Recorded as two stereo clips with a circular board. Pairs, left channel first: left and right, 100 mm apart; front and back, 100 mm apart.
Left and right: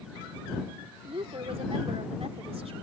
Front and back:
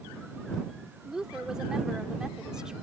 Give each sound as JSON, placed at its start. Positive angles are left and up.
{"t": 1.1, "sound": "a woman speaking", "azimuth_deg": -95}